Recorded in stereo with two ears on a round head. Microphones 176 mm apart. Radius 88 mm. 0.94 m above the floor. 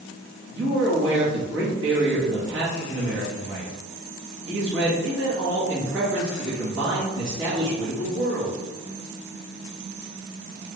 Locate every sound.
0.5 s a man speaking: 65° right (ahead or behind), 1.3 m